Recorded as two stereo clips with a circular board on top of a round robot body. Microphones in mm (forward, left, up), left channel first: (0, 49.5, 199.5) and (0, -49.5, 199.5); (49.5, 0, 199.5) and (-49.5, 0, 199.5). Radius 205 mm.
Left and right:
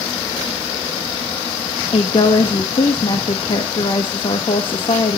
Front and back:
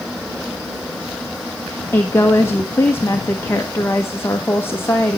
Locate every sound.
1.9 s a woman speaking: 65° left, 1.4 m